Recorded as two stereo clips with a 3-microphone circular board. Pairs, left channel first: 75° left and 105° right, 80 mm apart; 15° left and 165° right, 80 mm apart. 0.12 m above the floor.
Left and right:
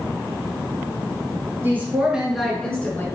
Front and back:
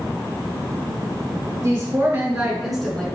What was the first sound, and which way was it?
A woman speaking, 145° right.